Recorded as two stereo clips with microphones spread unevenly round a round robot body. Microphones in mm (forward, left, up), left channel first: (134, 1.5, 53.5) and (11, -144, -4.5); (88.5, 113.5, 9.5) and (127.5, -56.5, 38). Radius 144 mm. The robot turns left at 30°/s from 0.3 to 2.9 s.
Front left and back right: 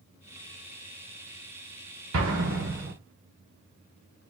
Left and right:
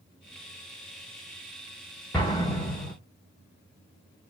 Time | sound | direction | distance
2.1 | an explosion | 170° right | 1.0 m